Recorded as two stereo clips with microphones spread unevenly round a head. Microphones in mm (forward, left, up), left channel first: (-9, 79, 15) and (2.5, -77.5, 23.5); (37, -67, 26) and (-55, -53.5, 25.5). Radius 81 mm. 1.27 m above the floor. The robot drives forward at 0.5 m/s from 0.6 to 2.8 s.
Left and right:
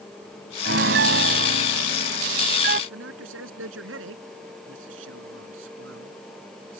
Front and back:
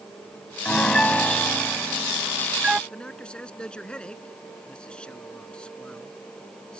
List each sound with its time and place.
0.7 s a piano: 85° right; by 2.8 s 110° right
2.9 s a man speaking: 90° right